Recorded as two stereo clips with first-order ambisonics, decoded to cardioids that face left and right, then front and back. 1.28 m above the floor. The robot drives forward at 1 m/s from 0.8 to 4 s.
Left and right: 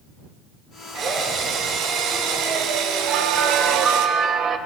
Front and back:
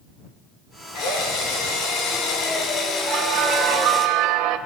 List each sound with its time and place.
0.9 s a drill: 35° right, 5 m; by 4.1 s 75° right, 3 m
3.1 s a bell: 130° right, 1.6 m; by 4.6 s 150° right, 2.5 m